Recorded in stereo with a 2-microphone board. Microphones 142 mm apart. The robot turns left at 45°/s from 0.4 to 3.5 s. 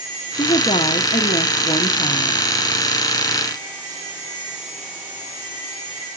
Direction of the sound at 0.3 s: 135° left.